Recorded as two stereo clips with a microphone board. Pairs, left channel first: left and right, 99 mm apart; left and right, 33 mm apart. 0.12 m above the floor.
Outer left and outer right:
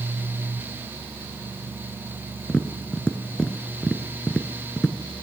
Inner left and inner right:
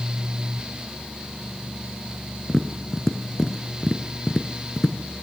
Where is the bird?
I don't hear a bird.